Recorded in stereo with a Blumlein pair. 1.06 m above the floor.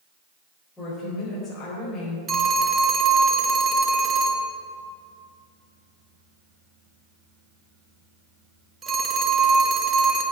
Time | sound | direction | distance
0.8 | a woman speaking | 15° left | 4 m
2.3 | a phone ringing | 20° right | 1.4 m